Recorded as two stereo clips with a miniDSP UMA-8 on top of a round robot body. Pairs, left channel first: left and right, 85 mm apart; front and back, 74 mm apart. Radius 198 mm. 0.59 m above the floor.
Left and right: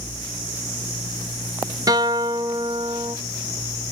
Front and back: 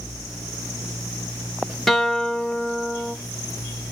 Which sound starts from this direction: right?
A guitar, at 1.9 s.